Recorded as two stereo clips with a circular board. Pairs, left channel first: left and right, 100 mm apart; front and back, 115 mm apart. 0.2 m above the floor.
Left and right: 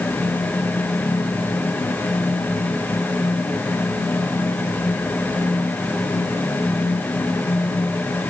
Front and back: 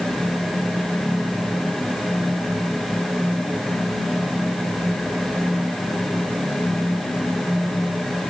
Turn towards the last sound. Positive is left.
No sound to turn to.